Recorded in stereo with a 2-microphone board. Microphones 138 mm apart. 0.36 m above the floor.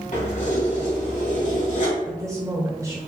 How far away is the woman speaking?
About 1.0 m.